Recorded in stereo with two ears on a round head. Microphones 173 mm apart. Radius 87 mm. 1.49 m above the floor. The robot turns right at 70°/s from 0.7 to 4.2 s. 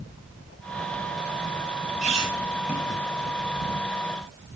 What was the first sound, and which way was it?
A squeak, 40° right (ahead or behind).